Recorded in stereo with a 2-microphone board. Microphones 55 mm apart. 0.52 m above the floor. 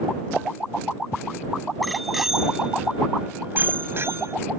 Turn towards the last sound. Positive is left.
turn(degrees=-60)  # may be behind; listen again after turning